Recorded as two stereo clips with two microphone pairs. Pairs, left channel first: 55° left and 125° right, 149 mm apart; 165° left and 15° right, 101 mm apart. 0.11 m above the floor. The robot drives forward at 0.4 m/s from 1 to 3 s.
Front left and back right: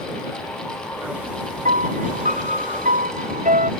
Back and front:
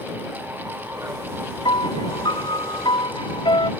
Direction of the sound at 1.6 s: 155° right.